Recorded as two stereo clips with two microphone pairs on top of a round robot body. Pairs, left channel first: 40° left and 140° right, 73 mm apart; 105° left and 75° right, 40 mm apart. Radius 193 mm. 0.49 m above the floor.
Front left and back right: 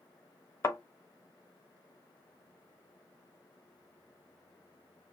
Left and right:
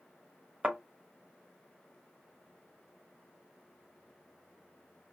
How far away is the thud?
About 0.8 m.